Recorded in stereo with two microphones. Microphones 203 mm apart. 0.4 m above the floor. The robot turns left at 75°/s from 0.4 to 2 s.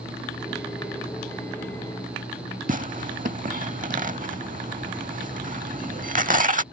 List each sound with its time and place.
2.7 s tearing paper: 40° right (ahead or behind)